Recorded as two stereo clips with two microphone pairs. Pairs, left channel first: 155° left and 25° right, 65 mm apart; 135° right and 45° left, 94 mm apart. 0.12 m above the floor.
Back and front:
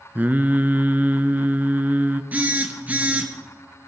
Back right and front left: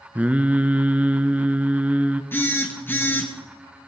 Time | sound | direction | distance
0.1 | singing | 15° right | 0.7 m
2.3 | a phone buzzing | 80° right | 2.5 m